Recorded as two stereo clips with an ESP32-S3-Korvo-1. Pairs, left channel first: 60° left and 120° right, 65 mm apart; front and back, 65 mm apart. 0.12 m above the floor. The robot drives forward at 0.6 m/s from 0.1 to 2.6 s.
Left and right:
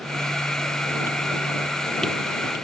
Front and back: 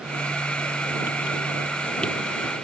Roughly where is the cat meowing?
I don't hear a cat meowing.